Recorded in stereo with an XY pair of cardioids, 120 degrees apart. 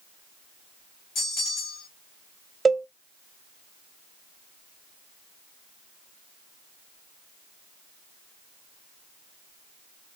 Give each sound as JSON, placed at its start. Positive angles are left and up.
{"t": 1.1, "sound": "a bell", "azimuth_deg": 60, "distance_m": 2.5}
{"t": 2.6, "sound": "a cowbell", "azimuth_deg": -20, "distance_m": 1.1}